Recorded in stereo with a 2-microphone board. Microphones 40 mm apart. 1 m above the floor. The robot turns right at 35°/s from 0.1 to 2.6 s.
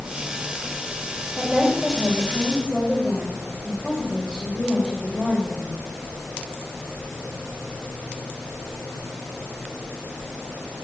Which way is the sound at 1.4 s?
30° right.